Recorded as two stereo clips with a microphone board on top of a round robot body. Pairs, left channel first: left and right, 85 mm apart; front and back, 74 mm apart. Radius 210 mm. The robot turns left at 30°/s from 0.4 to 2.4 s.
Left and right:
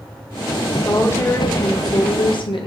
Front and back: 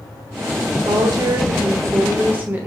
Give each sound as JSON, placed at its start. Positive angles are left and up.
{"t": 0.8, "sound": "a woman speaking", "azimuth_deg": 160, "distance_m": 0.9}